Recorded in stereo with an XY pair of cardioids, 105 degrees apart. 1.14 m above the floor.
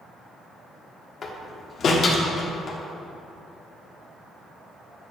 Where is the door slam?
50° left, 1.5 m.